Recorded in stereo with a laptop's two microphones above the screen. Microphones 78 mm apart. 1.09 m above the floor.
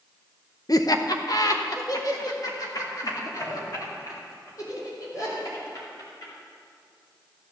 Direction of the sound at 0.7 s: 50° left (ahead or behind).